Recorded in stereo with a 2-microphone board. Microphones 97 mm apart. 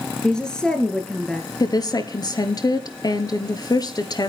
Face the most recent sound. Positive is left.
turn(degrees=45)  # may be behind; listen again after turning